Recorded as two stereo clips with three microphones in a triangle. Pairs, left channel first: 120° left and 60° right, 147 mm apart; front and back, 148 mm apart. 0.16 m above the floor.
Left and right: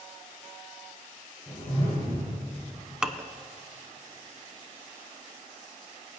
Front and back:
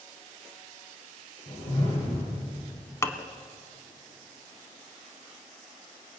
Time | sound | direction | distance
1.5 | a whoosh | 45° left | 6.5 m
3.0 | dishes clattering | 15° left | 0.7 m